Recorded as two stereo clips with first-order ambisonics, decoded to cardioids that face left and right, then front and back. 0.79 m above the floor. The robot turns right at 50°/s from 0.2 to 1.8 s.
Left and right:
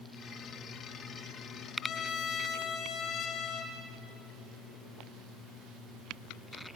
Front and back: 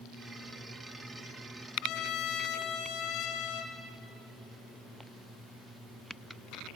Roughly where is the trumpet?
Ahead left.